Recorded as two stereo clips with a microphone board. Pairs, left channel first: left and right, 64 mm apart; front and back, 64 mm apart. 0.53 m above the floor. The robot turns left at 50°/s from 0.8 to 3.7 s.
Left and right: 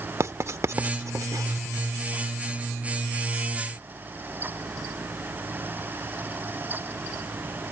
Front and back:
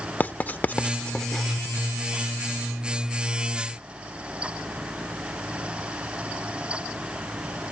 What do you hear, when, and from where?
0.2 s writing: 60° right; by 1.6 s 100° right